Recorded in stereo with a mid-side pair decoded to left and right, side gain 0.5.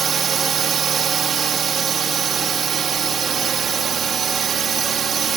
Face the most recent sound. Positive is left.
turn(degrees=-50)